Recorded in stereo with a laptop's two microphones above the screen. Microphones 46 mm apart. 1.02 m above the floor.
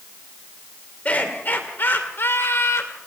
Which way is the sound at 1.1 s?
30° left (ahead or behind).